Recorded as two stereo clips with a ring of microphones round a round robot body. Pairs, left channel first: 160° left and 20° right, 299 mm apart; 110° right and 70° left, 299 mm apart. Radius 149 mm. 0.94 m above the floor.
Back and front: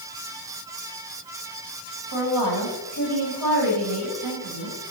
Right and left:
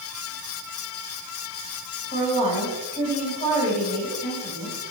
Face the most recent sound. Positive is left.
turn(degrees=-45)